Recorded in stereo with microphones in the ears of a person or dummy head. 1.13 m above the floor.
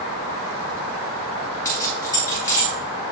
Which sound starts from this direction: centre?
Keys jangling, at 1.6 s.